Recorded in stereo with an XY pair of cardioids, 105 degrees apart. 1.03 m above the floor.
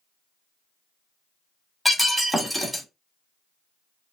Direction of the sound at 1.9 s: Straight ahead.